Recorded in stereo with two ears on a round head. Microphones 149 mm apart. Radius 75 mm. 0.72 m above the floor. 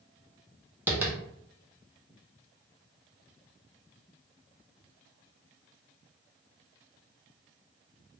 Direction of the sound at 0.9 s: 10° right (ahead or behind).